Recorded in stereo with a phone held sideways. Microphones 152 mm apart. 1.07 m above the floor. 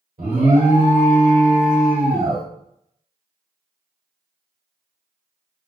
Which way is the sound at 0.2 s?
70° right (ahead or behind).